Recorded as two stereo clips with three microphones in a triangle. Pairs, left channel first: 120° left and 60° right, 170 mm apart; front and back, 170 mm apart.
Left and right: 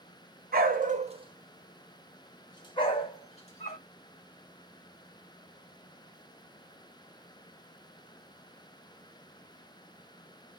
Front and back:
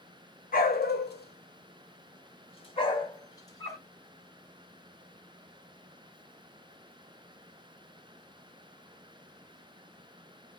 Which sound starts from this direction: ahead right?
A dog barking, at 0.5 s.